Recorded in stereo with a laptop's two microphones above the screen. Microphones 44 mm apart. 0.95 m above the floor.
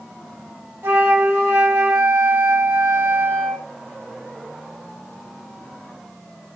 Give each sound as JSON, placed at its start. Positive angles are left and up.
{"t": 0.8, "sound": "a flute", "side_deg": -70, "distance_m": 0.9}